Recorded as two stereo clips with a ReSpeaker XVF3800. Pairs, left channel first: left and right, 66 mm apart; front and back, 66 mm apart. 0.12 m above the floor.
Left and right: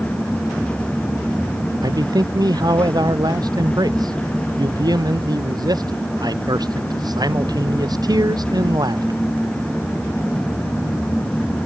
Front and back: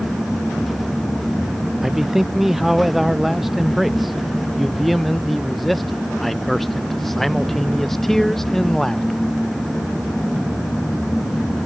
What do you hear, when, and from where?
1.8 s a man speaking: 95° right; by 9.2 s 85° right